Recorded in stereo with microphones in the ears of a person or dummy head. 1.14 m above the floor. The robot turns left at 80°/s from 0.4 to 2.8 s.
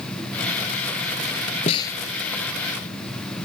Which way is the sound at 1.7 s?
35° left (ahead or behind).